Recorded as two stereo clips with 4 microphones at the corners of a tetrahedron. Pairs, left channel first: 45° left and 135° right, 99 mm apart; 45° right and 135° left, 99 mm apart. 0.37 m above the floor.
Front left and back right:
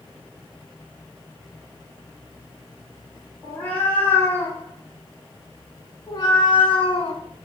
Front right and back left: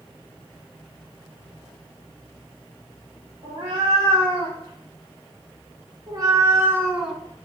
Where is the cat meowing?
120° left, 2.5 m; by 7.2 s 40° left, 0.8 m.